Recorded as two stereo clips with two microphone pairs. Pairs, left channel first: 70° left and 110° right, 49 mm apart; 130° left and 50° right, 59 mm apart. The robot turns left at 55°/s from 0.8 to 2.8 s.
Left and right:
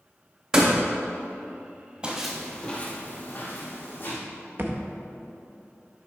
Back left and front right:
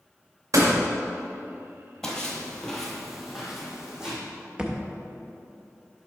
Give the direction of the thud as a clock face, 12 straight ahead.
4 o'clock.